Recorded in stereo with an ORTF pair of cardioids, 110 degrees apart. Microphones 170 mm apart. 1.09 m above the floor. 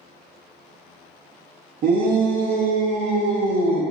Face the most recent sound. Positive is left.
turn(degrees=-70)